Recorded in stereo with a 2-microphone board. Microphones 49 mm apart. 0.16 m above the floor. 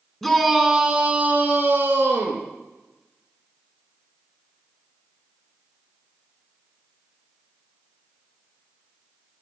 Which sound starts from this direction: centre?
A shout, at 0.2 s.